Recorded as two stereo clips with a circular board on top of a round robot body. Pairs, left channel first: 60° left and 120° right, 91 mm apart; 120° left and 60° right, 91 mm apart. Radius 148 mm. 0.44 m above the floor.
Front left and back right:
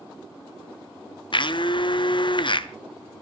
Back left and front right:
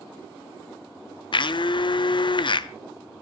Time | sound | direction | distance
1.3 | a blender | 90° left | 1.1 m